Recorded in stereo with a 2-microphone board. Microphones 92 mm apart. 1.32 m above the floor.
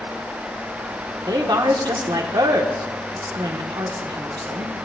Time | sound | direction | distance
1.3 | a woman speaking | 50° right (ahead or behind) | 1.3 m